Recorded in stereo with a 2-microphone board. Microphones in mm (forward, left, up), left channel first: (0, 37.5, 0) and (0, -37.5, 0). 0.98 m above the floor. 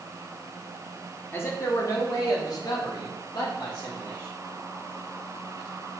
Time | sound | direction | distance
1.3 | a man speaking | 25° left (ahead or behind) | 0.8 m